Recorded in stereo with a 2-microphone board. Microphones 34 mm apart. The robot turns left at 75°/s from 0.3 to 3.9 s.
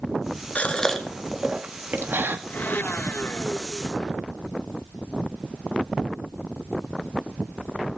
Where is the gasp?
35° left (ahead or behind), 2 m; by 2.4 s 80° right, 2 m.